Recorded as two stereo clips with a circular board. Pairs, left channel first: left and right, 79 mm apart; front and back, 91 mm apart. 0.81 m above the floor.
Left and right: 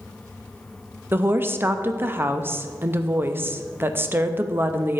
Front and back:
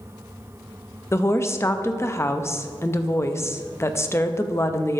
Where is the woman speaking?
45° right, 0.5 m.